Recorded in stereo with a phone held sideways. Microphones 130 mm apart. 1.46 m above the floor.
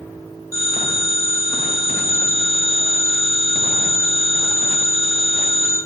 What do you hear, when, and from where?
0.5 s a phone ringing: 25° left (ahead or behind), 2.0 m